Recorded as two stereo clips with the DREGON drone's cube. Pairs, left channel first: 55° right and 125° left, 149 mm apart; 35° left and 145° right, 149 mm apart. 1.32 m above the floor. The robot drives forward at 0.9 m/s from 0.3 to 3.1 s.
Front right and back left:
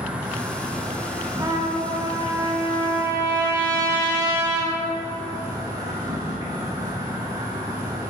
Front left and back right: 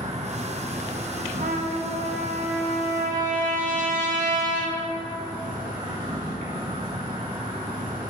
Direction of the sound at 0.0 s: 160° right.